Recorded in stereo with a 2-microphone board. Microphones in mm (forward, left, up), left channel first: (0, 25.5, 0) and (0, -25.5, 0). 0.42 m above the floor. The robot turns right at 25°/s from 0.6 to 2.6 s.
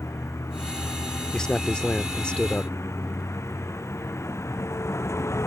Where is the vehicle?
70° left; by 5.5 s 120° left.